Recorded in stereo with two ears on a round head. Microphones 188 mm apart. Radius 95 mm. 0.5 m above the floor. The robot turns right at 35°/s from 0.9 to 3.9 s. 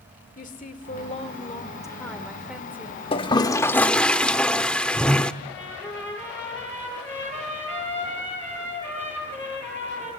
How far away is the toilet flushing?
About 0.7 m.